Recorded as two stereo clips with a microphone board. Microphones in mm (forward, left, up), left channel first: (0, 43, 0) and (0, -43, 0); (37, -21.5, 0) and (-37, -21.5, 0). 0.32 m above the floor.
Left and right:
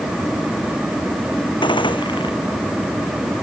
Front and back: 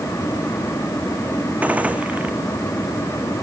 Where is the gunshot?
110° left.